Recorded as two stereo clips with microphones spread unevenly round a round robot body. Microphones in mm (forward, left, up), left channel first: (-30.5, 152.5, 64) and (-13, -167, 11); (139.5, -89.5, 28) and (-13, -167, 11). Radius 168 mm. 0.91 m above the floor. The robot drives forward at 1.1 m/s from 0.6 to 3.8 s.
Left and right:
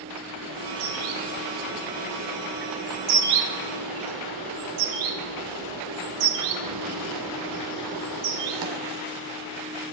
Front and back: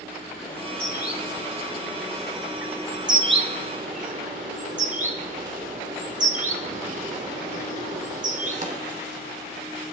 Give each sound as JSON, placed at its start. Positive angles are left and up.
{"t": 0.4, "sound": "a bird", "azimuth_deg": -35, "distance_m": 3.5}